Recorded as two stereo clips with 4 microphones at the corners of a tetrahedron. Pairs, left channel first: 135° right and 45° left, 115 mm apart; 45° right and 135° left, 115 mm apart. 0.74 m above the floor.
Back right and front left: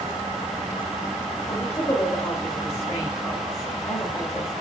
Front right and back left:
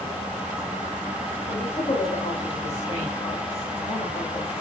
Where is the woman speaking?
70° right, 4 m.